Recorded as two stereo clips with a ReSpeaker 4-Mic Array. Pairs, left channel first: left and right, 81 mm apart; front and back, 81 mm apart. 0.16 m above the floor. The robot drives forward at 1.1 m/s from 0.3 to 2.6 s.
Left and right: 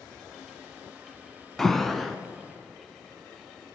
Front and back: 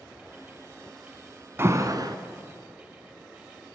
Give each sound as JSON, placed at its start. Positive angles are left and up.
{"t": 1.6, "sound": "an alarm", "azimuth_deg": 170, "distance_m": 0.8}